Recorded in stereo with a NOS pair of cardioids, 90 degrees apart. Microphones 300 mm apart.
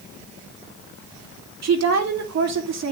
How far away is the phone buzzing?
No phone buzzing in this recording.